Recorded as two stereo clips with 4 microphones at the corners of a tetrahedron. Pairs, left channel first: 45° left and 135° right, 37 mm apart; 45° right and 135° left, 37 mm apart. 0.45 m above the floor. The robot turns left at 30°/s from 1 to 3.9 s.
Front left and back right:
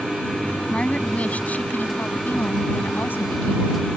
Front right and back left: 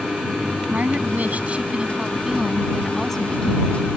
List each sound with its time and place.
0.7 s a woman speaking: 95° left; by 3.9 s 10° left